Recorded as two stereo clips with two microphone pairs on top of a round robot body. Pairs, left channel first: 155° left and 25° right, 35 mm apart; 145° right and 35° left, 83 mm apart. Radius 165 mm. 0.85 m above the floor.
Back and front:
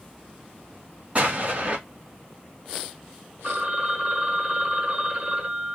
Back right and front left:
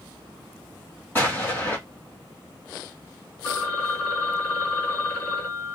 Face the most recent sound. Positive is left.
turn(degrees=-80)